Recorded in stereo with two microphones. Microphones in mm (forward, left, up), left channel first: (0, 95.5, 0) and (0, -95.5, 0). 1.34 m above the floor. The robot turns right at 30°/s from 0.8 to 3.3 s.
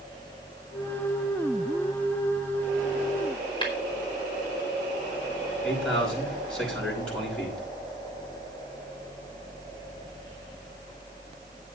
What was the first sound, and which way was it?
Tapping, 25° left (ahead or behind).